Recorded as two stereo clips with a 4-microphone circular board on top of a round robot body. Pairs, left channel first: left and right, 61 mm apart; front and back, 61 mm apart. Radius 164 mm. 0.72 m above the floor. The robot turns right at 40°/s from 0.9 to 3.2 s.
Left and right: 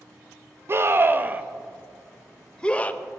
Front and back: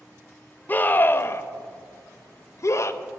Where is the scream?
50° right, 0.7 m; by 3.0 s 35° left, 0.7 m.